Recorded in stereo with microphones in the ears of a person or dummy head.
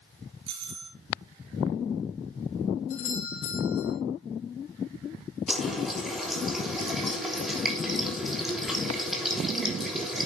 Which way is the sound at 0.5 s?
40° right (ahead or behind).